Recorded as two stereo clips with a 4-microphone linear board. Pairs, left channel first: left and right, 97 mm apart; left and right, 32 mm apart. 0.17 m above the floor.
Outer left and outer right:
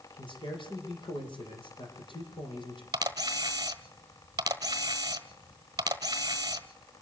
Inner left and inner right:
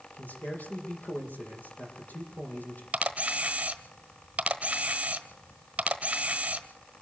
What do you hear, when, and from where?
0.1 s a man speaking: 60° left (ahead or behind), 6.5 m
2.9 s a camera shutter: 40° right (ahead or behind), 1.3 m